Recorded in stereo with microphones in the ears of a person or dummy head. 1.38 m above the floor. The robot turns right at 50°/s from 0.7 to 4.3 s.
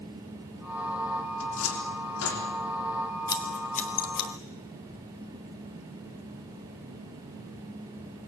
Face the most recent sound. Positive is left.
turn(degrees=70)  # may be behind; listen again after turning